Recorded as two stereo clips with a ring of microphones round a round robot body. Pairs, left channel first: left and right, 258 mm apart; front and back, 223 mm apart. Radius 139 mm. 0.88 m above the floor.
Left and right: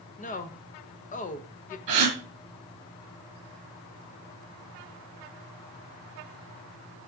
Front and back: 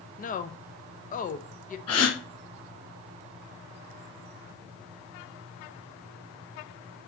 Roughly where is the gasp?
Right.